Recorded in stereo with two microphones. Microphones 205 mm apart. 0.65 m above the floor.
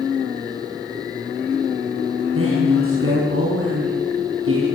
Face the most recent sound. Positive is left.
turn(degrees=-85)